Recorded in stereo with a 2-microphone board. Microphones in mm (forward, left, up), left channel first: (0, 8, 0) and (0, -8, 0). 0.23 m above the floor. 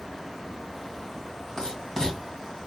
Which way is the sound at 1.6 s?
35° left (ahead or behind).